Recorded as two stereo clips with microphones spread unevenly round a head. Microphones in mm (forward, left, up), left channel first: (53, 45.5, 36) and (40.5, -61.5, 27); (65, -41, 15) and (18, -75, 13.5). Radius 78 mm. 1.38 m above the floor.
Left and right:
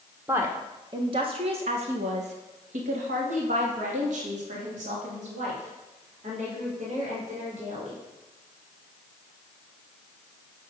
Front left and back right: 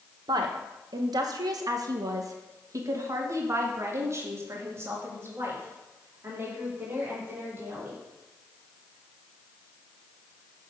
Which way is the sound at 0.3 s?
175° right.